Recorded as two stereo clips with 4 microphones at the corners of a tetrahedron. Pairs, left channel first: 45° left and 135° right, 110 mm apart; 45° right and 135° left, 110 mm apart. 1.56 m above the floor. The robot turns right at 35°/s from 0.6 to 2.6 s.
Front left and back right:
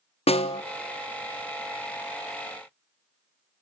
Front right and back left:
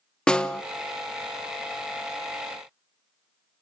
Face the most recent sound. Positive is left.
turn(degrees=105)